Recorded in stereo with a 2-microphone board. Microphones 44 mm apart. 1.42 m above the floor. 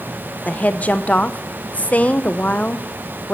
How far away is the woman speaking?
About 0.6 m.